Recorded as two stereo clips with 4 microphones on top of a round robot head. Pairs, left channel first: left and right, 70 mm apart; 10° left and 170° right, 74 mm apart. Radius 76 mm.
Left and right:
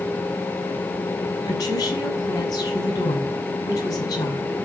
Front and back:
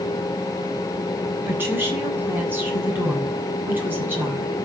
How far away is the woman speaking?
About 8 m.